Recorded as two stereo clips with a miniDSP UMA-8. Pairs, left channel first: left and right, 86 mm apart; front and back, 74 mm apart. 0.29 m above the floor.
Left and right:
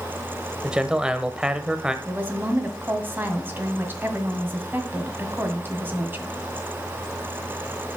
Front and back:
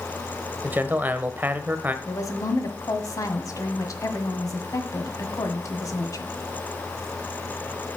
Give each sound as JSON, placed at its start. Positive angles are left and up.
{"t": 0.6, "sound": "a man speaking", "azimuth_deg": -155, "distance_m": 0.9}
{"t": 2.0, "sound": "a woman speaking", "azimuth_deg": -30, "distance_m": 1.7}